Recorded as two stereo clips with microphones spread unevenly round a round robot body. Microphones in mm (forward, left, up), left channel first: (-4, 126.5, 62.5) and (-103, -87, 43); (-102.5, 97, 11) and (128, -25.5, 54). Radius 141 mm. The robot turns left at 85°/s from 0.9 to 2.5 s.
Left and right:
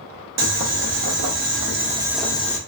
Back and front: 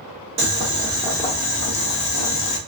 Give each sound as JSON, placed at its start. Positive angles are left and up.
{"t": 0.4, "sound": "boiling", "azimuth_deg": -95, "distance_m": 0.8}